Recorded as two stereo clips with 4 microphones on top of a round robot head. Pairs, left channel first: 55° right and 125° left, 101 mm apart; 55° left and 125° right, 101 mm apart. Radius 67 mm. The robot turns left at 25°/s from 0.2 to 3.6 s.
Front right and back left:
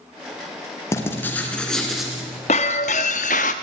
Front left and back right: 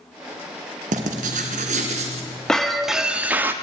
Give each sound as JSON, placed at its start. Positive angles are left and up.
{"t": 0.9, "sound": "writing", "azimuth_deg": -120, "distance_m": 2.5}
{"t": 2.5, "sound": "breaking glass", "azimuth_deg": -30, "distance_m": 1.0}